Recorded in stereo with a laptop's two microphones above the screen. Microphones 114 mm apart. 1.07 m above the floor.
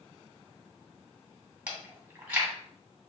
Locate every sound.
1.7 s chewing: 15° right (ahead or behind), 1.7 m